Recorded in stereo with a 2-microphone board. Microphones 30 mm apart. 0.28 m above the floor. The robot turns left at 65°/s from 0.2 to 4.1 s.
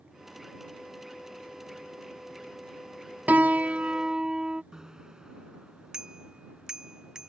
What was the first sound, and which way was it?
A piano, 100° right.